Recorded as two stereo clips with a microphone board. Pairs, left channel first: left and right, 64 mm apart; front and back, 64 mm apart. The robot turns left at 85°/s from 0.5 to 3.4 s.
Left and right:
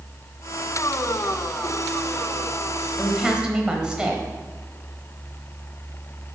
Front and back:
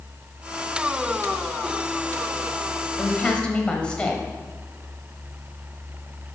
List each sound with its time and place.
3.0 s a woman speaking: 5° right, 0.9 m; by 4.2 s 40° right, 0.9 m